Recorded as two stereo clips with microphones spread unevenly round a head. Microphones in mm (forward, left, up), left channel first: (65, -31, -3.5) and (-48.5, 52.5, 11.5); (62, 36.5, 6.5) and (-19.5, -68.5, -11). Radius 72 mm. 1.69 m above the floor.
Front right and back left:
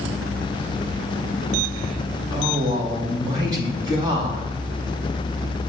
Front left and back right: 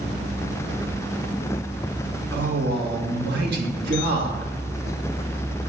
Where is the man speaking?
155° right, 1.9 m.